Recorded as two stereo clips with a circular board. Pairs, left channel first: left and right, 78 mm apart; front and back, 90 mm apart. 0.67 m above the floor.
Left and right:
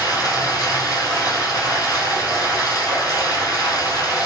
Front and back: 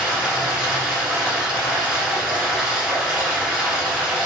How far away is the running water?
About 1.2 m.